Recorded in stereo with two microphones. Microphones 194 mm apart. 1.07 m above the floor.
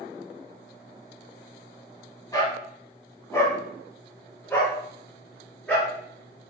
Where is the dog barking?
20° left (ahead or behind), 1.6 m; by 5.9 s 5° left (ahead or behind), 3 m.